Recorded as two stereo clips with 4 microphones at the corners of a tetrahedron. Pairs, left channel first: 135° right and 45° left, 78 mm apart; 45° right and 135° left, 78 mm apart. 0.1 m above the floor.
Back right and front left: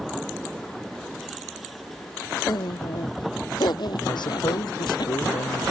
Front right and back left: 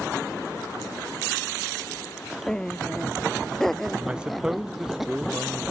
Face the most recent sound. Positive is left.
turn(degrees=-145)